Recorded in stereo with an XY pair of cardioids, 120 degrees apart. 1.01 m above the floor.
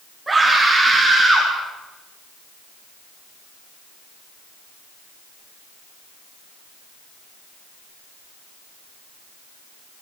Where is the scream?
15° right, 8.5 m; by 1.5 s 10° right, 9.5 m.